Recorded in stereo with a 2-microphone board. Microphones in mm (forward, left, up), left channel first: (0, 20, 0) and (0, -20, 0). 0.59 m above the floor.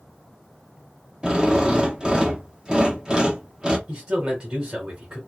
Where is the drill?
20° right (ahead or behind), 0.9 m.